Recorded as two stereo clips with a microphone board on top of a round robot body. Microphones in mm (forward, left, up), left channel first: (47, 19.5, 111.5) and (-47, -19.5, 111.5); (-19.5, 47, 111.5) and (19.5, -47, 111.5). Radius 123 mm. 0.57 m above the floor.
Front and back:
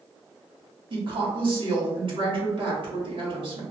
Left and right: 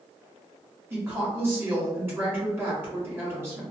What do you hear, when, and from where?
0.9 s a woman speaking: 135° right, 1.6 m